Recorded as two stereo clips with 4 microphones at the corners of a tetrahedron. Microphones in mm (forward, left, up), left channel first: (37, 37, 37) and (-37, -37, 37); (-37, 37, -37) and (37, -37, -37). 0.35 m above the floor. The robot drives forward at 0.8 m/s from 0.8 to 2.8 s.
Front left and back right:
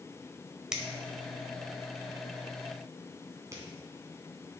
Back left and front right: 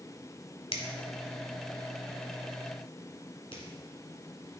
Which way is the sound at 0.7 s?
140° left.